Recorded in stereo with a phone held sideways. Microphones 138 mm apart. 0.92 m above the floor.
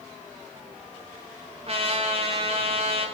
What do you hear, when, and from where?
1.7 s a trumpet: 45° right (ahead or behind), 2 m